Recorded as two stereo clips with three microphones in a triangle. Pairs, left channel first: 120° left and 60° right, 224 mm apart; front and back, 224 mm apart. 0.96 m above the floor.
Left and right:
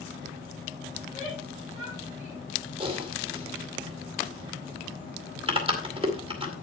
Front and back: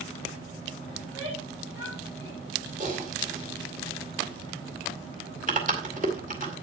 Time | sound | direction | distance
1.0 | a shout | 170° right | 6 m
2.8 | typing on a keyboard | 125° right | 2 m